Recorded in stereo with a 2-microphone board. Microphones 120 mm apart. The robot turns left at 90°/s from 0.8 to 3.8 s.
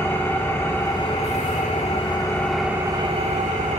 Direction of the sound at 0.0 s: 160° left.